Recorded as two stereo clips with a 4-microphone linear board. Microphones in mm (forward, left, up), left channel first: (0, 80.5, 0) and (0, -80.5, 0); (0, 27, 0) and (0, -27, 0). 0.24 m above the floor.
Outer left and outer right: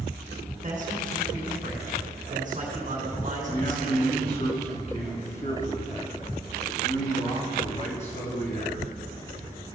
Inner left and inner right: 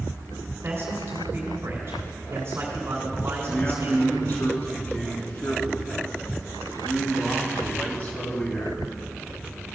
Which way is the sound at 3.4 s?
45° left (ahead or behind).